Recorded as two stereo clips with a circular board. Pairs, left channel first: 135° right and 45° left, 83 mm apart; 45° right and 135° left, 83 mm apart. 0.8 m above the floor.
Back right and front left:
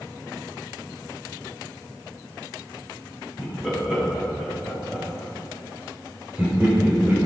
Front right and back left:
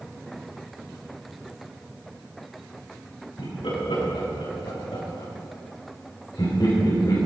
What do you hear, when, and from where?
3.4 s laughter: 40° right, 6 m; by 7.2 s 15° right, 3 m